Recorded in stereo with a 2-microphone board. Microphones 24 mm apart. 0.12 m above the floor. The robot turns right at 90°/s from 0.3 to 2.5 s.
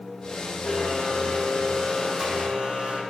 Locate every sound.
0.6 s a blender: 75° left, 5.5 m; by 3.0 s 115° right, 5.5 m